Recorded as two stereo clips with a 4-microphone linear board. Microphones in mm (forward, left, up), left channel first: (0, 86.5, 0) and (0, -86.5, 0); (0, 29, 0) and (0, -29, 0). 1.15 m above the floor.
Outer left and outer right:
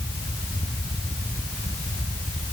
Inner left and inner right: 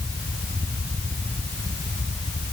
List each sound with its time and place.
Only background noise.